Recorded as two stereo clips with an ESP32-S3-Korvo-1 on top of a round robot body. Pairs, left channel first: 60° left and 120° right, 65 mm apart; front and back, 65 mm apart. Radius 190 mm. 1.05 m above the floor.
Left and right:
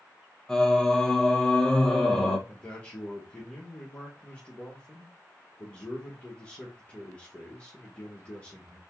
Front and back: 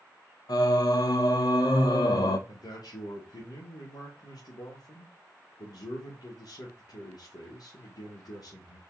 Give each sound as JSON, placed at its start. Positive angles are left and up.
{"t": 0.5, "sound": "singing", "azimuth_deg": -20, "distance_m": 0.7}
{"t": 2.5, "sound": "a man speaking", "azimuth_deg": -10, "distance_m": 1.7}